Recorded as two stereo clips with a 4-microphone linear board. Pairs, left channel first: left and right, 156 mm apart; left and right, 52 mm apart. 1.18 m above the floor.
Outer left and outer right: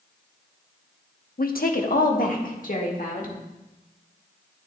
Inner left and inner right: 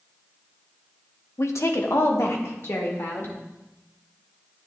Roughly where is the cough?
No cough in this recording.